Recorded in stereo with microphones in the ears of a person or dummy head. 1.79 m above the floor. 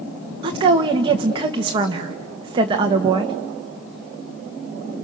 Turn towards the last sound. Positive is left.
turn(degrees=-25)  # may be behind; listen again after turning